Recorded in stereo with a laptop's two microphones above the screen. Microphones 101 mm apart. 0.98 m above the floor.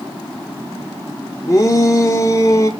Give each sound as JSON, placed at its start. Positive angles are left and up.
{"t": 1.5, "sound": "a shout", "side_deg": 30, "distance_m": 1.3}